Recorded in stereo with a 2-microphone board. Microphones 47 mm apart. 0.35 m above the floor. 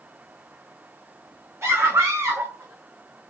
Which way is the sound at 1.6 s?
75° right (ahead or behind).